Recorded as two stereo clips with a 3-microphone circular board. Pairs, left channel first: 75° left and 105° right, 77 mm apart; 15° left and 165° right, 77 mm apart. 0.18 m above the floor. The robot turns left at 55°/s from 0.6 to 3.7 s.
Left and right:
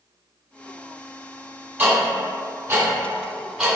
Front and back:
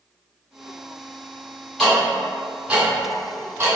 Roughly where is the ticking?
Ahead right.